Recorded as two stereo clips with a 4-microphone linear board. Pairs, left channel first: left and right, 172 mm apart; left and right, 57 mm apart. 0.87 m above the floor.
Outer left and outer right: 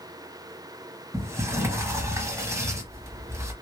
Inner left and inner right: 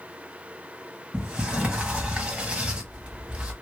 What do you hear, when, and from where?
1.1 s a sliding door: 15° right (ahead or behind), 0.9 m